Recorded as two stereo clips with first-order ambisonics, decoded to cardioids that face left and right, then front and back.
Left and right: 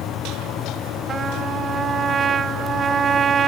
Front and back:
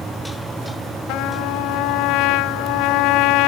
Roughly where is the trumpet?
Ahead right.